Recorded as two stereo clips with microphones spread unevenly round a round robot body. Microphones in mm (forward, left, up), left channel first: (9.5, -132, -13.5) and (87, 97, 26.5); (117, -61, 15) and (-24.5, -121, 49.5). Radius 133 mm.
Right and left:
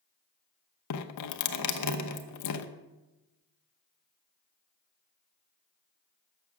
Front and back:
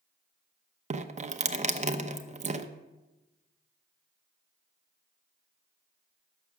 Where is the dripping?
110° right, 0.8 m.